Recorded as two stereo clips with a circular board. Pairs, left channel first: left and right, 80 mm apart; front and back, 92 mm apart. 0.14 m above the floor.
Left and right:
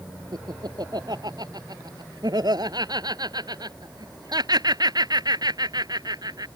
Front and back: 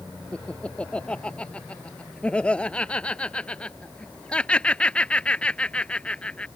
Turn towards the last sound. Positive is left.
turn(degrees=-75)